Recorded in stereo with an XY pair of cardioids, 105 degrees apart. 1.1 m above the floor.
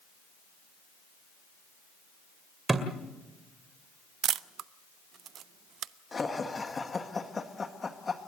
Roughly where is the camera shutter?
Ahead right.